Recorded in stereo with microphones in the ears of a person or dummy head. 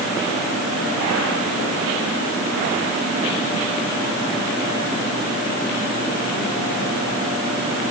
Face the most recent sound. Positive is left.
No sound to turn to.